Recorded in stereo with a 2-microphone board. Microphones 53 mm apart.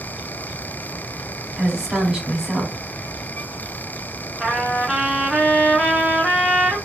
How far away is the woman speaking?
About 1.1 m.